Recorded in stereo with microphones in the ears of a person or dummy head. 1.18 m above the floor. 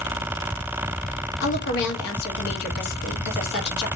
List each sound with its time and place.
1.4 s a woman speaking: 65° left (ahead or behind), 1.5 m